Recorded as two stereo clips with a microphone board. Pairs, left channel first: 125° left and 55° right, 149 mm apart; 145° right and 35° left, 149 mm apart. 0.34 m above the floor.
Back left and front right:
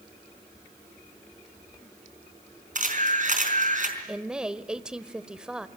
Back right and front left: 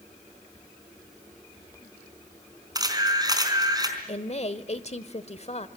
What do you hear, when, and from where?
2.8 s a camera shutter: 30° right, 4 m
4.1 s a woman speaking: 140° right, 1.2 m